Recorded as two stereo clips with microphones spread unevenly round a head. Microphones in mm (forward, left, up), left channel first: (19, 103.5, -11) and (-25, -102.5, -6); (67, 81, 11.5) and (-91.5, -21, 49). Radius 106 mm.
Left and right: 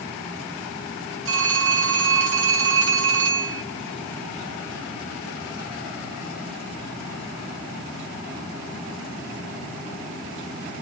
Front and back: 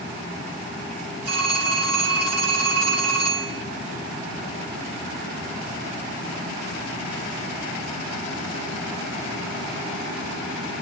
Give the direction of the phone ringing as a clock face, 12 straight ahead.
5 o'clock.